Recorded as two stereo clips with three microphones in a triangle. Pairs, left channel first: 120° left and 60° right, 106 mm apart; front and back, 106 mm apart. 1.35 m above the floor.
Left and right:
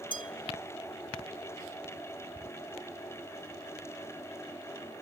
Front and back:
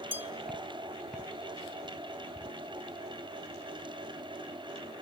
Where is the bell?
115° left, 1.1 m.